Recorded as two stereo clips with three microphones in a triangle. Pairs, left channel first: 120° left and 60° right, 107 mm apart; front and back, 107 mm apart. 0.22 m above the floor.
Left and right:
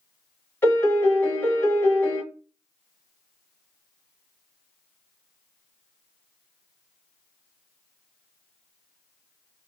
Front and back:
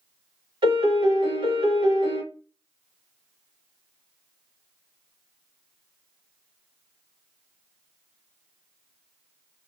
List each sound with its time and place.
0.6 s a piano: 175° right, 1.1 m